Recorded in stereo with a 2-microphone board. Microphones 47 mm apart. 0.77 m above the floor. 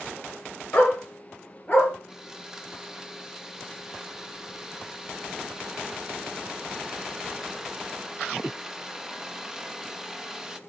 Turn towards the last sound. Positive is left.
turn(degrees=-10)  # may be behind; listen again after turning